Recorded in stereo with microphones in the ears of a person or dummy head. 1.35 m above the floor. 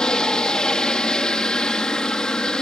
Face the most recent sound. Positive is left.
turn(degrees=0)  # may be behind; listen again after turning